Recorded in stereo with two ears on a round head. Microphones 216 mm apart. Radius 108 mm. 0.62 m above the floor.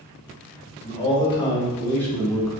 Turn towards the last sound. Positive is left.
turn(degrees=0)  # may be behind; listen again after turning